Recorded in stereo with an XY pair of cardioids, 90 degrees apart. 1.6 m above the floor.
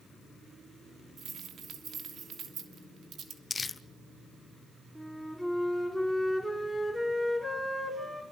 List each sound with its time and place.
1.2 s keys jangling: 65° right, 3 m
3.5 s crumpling: 30° left, 0.8 m
5.0 s a flute: 5° right, 6 m